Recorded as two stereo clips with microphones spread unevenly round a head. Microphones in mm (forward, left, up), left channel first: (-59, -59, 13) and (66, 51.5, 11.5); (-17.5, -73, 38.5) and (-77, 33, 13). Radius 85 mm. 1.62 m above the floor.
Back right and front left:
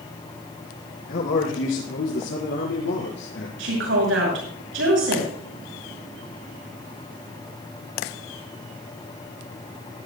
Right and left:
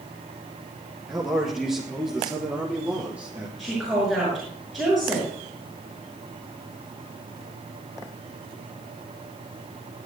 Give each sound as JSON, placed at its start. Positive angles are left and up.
{"t": 1.1, "sound": "a man speaking", "azimuth_deg": -150, "distance_m": 4.5}
{"t": 3.6, "sound": "a woman speaking", "azimuth_deg": 30, "distance_m": 6.0}